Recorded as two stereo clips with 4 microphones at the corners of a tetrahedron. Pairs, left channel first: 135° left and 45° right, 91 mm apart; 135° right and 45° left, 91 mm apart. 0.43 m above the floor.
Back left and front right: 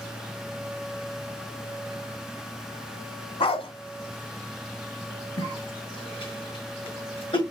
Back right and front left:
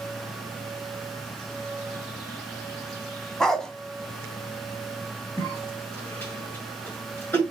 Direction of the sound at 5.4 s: 155° left.